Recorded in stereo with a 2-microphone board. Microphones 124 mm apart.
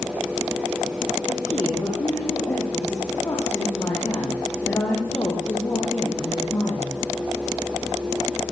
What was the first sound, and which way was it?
A woman speaking, 25° left (ahead or behind).